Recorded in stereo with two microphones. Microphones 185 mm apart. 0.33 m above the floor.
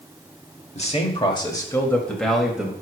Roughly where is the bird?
No bird in this recording.